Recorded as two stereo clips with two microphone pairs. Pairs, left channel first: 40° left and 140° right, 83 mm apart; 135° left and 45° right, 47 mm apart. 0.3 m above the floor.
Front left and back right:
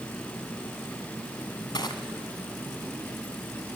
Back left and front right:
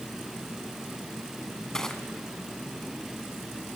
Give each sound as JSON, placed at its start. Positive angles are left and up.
{"t": 1.7, "sound": "crushing", "azimuth_deg": 60, "distance_m": 1.6}